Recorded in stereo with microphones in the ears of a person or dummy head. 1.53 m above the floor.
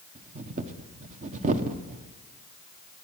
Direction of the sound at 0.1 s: 40° right (ahead or behind).